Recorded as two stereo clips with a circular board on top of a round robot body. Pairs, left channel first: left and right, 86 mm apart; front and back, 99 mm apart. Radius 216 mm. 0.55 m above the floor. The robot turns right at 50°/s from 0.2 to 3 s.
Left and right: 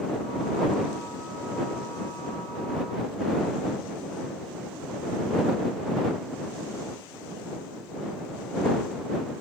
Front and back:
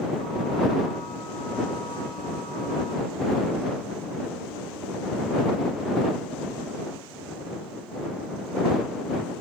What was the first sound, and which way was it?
Only background noise.